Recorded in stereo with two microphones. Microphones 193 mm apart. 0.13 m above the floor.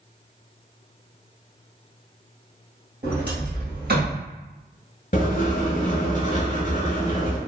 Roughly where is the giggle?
I don't hear a giggle.